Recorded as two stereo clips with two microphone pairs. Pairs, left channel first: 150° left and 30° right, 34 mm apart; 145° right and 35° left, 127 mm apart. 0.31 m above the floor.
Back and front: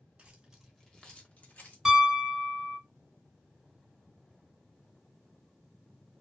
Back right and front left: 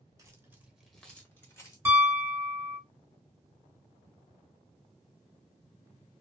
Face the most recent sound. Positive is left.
turn(degrees=25)